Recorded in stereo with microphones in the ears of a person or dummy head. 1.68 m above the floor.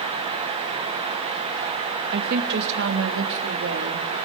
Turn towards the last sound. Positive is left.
turn(degrees=-80)